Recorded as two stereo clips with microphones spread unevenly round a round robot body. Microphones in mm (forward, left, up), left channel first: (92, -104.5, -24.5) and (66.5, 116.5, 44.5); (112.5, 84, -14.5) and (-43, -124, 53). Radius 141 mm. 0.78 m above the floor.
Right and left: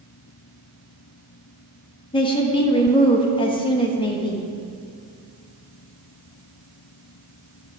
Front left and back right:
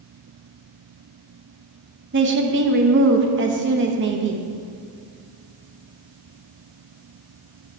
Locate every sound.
2.1 s a woman speaking: 85° right, 1.1 m